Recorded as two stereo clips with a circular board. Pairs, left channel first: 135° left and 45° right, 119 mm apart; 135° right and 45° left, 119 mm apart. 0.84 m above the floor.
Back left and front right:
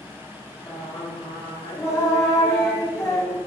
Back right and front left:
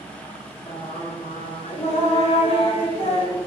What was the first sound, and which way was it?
Singing, 165° right.